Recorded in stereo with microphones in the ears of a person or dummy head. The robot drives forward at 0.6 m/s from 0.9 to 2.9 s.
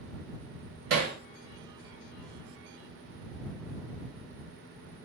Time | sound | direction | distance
0.9 | hammering | 45° right (ahead or behind) | 0.6 m